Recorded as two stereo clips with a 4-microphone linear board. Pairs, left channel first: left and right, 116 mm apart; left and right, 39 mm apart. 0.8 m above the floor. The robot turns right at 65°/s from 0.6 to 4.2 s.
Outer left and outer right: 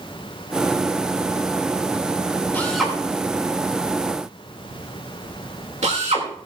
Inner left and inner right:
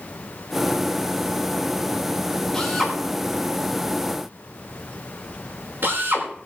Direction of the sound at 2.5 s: 15° left (ahead or behind).